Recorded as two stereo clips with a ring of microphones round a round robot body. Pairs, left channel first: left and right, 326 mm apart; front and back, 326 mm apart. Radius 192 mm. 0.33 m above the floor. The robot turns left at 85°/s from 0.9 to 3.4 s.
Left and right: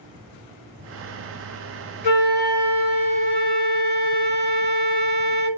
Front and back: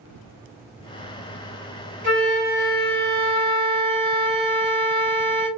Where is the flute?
125° left, 1.8 m; by 5.5 s 10° left, 1.8 m.